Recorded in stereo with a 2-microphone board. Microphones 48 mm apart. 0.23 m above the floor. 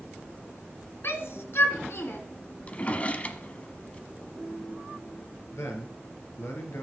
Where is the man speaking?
65° left (ahead or behind), 3 m.